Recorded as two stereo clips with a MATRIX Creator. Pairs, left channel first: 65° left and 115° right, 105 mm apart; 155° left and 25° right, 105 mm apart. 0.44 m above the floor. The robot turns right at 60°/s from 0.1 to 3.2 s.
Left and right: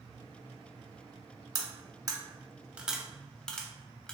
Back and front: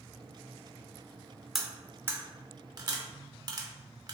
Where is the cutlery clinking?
110° right, 0.7 m; by 4.1 s 10° right, 0.7 m.